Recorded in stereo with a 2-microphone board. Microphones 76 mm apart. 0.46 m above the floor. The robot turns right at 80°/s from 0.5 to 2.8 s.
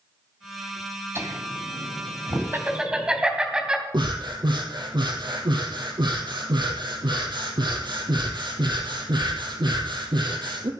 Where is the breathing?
80° right, 2.5 m.